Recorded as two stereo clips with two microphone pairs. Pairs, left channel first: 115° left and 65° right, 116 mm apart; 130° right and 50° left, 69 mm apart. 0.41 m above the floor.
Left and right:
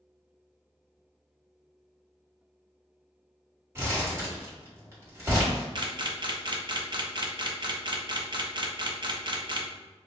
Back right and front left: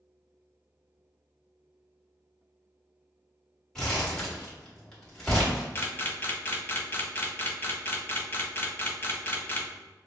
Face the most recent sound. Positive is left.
turn(degrees=-90)